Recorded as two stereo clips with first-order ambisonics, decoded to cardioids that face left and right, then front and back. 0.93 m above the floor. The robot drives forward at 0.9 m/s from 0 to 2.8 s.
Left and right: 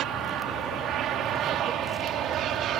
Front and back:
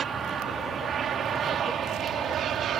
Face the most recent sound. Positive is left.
turn(degrees=-130)